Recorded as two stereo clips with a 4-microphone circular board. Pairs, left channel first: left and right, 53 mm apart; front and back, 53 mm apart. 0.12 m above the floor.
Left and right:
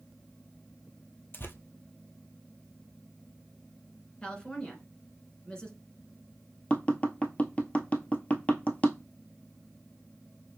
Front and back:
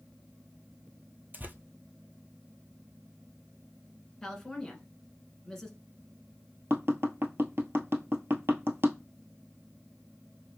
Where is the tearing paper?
130° left, 0.8 m.